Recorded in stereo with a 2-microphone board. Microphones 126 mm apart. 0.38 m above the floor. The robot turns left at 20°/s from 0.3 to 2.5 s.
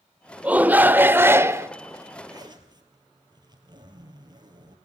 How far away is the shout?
About 0.8 m.